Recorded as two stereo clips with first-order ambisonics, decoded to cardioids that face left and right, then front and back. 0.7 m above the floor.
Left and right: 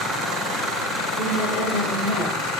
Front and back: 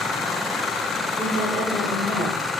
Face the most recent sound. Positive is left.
turn(degrees=85)